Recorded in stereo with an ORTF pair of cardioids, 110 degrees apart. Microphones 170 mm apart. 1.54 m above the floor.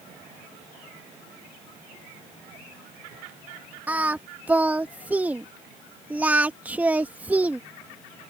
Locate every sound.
3.9 s singing: 10° right